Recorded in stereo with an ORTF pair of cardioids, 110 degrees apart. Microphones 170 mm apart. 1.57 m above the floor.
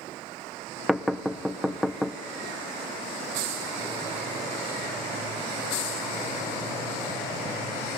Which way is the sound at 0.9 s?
Straight ahead.